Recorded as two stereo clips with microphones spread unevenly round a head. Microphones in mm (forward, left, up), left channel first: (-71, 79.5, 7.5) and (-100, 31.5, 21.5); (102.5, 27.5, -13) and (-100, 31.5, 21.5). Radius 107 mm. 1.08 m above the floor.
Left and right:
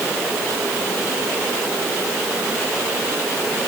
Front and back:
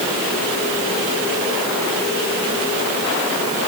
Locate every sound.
Only background noise.